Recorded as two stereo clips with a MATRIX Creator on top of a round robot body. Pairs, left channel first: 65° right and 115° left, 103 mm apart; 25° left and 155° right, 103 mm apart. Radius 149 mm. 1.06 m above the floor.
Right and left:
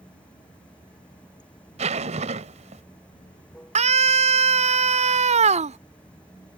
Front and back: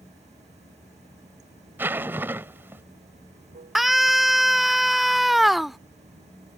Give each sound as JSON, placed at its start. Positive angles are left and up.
{"t": 0.0, "sound": "running water", "azimuth_deg": -150}
{"t": 1.8, "sound": "a zipper", "azimuth_deg": 130}
{"t": 3.8, "sound": "a scream", "azimuth_deg": 115}